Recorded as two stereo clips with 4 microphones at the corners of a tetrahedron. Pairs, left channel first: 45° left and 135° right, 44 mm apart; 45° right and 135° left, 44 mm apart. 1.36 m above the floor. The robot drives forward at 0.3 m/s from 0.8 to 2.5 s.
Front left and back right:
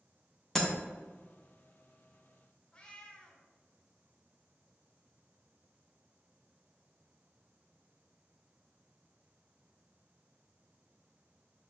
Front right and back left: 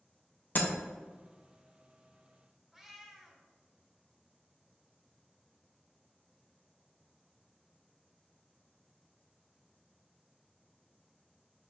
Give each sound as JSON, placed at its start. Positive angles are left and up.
{"t": 0.6, "sound": "breaking glass", "azimuth_deg": -30, "distance_m": 0.7}
{"t": 2.7, "sound": "a cat meowing", "azimuth_deg": 65, "distance_m": 0.5}